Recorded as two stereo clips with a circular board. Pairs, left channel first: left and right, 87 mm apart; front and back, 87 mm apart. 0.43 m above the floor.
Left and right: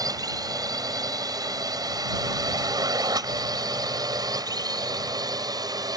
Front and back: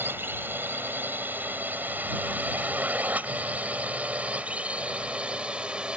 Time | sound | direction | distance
0.0 | a drone | 120° right | ?